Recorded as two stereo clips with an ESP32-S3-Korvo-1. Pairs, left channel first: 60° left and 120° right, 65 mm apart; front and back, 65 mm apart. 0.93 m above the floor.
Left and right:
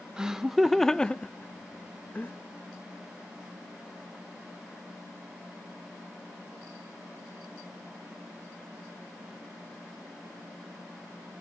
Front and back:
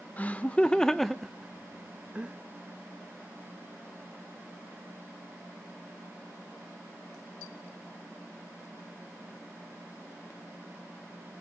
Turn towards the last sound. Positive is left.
turn(degrees=115)